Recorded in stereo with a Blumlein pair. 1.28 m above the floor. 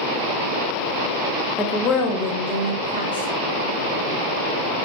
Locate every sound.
1.6 s a woman speaking: 5° left, 0.7 m; by 3.3 s 80° left, 1.3 m